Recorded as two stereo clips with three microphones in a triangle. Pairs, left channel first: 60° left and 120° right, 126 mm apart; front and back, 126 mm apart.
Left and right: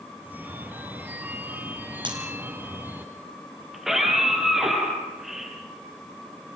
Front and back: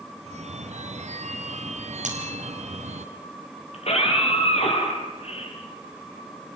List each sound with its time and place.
0.2 s a phone ringing: 165° left, 2 m
2.0 s breaking glass: 170° right, 3.5 m
3.7 s a scream: 35° right, 7.5 m